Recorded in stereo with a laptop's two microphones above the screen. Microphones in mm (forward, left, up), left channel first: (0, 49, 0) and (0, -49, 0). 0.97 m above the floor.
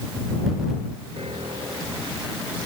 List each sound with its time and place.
1.2 s a piano: 85° right